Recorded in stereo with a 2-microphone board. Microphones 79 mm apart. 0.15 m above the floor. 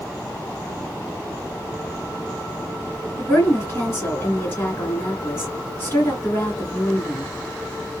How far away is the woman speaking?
About 2 m.